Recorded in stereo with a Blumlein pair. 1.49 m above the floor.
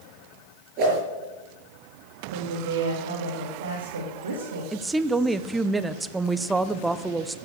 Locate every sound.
0.8 s a whoosh: 40° right, 6 m
2.3 s a woman speaking: 65° right, 3 m
4.7 s a woman speaking: 10° right, 0.8 m